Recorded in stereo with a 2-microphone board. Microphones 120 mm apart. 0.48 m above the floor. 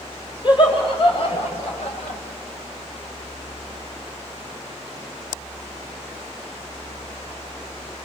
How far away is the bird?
I don't hear a bird.